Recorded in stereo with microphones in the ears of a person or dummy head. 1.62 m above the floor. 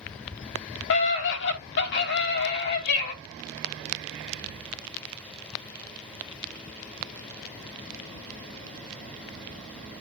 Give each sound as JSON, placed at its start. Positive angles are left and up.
{"t": 0.9, "sound": "a scream", "side_deg": 70, "distance_m": 3.5}